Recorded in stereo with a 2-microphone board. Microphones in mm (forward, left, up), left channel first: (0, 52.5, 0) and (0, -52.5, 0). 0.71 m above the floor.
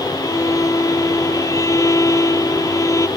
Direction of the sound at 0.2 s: 30° left (ahead or behind).